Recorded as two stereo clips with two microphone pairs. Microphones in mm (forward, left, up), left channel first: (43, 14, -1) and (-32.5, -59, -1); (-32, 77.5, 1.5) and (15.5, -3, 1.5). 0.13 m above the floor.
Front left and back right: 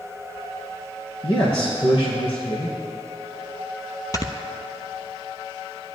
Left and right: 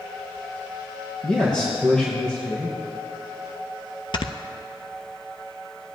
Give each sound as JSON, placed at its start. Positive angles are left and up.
{"t": 1.2, "sound": "a man speaking", "azimuth_deg": 40, "distance_m": 3.0}
{"t": 4.1, "sound": "snoring", "azimuth_deg": 95, "distance_m": 0.8}